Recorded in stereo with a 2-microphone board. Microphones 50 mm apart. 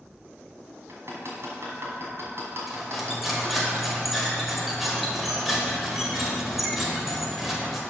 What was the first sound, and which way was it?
Hammering, 60° right (ahead or behind).